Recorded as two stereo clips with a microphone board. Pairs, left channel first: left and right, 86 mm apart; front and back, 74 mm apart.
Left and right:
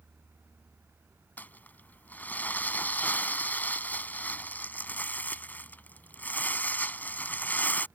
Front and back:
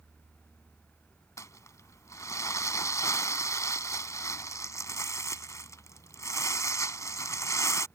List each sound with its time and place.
1.4 s crumpling: 25° left